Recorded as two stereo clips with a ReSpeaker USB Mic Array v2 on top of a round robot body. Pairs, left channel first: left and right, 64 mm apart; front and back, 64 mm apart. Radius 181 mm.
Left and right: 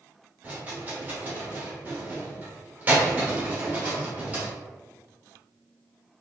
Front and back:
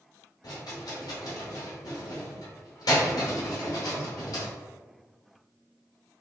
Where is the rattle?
25° right, 0.8 m.